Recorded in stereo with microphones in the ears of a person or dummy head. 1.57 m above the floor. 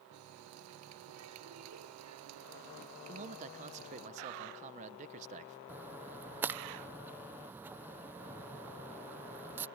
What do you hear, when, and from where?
0.1 s a running tap: 85° right
3.1 s a man speaking: 35° right (ahead or behind)
5.7 s a splash: 10° right (ahead or behind)